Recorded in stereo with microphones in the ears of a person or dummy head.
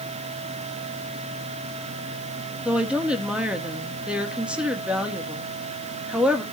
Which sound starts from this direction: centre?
A woman speaking, at 2.6 s.